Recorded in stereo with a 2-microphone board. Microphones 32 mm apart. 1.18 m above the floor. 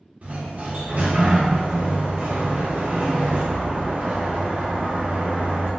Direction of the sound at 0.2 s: 45° right (ahead or behind).